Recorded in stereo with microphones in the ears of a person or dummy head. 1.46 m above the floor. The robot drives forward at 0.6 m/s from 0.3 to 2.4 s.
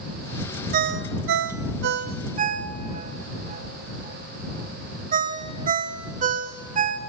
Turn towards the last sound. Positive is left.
turn(degrees=-35)  # may be behind; listen again after turning